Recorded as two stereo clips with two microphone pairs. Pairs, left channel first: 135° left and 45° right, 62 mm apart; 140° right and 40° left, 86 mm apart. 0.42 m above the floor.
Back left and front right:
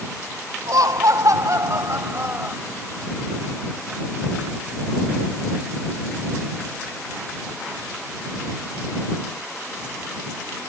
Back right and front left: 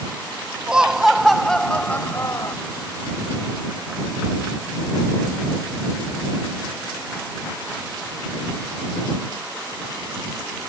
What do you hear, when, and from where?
0.7 s laughter: 40° right; by 2.6 s 100° right